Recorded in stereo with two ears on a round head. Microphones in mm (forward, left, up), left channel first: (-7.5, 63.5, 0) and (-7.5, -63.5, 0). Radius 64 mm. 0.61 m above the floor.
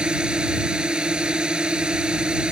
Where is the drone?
5° right (ahead or behind).